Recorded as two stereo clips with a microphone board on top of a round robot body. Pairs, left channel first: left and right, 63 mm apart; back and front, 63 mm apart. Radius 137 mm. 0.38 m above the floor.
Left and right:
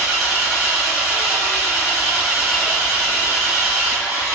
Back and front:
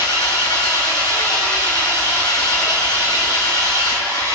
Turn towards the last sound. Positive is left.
turn(degrees=-170)